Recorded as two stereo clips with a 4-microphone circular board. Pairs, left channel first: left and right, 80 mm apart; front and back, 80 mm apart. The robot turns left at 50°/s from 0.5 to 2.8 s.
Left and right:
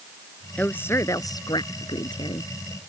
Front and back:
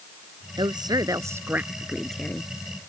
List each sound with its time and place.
0.6 s a woman speaking: 165° left; by 2.5 s 65° left